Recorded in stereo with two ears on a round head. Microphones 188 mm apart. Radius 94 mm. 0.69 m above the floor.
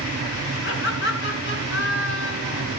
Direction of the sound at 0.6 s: 60° left (ahead or behind).